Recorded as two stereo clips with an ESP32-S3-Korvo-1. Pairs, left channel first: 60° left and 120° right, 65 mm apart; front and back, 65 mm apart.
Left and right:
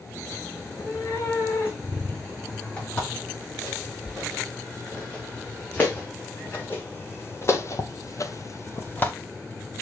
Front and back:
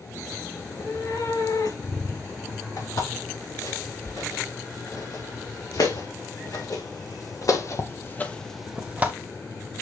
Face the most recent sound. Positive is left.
turn(degrees=120)